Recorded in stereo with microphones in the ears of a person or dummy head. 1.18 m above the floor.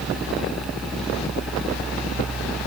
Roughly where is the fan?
Centre.